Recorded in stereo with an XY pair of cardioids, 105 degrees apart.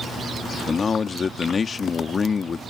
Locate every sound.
0.7 s a man speaking: 35° left